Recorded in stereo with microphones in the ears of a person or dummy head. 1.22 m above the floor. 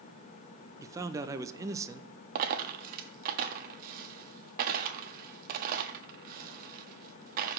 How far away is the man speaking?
About 0.6 m.